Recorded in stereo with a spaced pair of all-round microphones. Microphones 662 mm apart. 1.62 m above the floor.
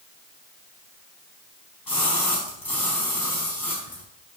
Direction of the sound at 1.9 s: 35° left (ahead or behind).